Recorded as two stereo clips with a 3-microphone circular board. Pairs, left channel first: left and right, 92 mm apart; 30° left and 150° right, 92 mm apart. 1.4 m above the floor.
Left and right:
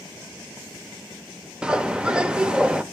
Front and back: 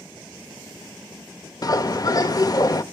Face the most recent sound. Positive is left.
turn(degrees=-10)